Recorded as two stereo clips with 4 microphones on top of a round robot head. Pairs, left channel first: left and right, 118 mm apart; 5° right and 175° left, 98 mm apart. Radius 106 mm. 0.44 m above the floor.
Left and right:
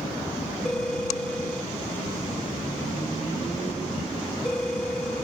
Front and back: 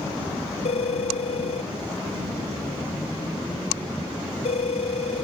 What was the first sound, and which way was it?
A phone ringing, 5° left.